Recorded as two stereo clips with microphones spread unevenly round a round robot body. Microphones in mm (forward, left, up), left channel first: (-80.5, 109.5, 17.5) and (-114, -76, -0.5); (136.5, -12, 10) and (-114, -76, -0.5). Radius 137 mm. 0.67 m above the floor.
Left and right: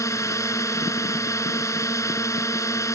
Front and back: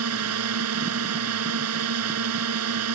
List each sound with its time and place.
0.0 s a drone: 155° left